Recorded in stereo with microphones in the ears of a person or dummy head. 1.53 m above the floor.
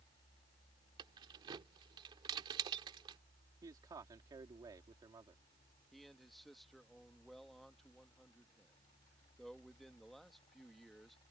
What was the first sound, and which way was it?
Keys jangling, 25° right (ahead or behind).